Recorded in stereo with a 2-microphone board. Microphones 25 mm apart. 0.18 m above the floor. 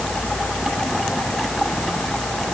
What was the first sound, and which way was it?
Only background noise.